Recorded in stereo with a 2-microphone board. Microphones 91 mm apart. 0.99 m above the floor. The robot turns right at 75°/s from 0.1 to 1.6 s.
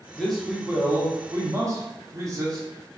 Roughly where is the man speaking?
Behind.